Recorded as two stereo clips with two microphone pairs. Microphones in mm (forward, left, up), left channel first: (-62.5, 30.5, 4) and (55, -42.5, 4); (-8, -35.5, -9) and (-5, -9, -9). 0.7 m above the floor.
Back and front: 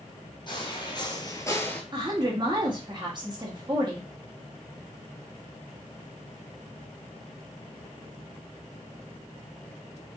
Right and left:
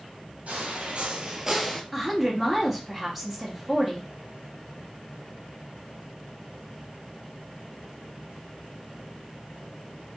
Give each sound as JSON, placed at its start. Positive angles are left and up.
{"t": 0.5, "sound": "footsteps", "azimuth_deg": 100, "distance_m": 1.3}
{"t": 1.9, "sound": "a woman speaking", "azimuth_deg": 5, "distance_m": 1.0}